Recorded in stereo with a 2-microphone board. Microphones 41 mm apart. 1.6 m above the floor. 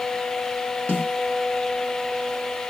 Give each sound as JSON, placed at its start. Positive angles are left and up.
{"t": 0.9, "sound": "a snare drum", "side_deg": 35, "distance_m": 1.0}